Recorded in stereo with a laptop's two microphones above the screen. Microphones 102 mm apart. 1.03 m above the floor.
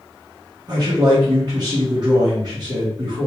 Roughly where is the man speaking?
Right.